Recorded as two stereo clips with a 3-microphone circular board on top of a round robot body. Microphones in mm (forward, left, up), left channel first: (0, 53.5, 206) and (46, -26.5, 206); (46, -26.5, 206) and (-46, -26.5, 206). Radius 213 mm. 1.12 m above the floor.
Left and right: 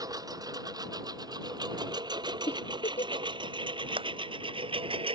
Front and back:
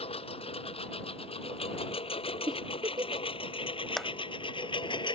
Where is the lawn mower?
10° right; by 5.2 s 35° right.